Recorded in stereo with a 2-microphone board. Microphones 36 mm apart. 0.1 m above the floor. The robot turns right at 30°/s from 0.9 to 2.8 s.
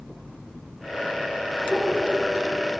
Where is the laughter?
25° left (ahead or behind), 1.8 m; by 2.2 s 20° left (ahead or behind), 1.8 m.